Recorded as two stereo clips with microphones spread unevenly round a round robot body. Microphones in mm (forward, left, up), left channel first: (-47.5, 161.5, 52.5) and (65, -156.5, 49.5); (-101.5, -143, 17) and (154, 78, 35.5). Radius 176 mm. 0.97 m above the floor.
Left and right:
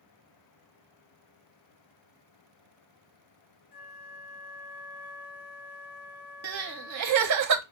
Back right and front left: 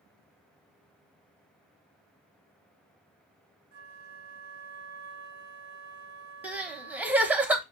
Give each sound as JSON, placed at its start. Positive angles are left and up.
{"t": 3.7, "sound": "a flute", "azimuth_deg": 90, "distance_m": 0.9}
{"t": 6.4, "sound": "crying", "azimuth_deg": -45, "distance_m": 0.8}